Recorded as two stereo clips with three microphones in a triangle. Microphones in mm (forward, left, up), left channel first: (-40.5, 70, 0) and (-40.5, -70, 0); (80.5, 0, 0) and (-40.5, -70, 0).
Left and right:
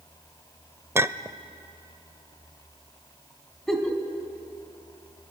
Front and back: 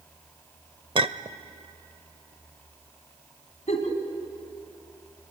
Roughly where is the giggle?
Ahead.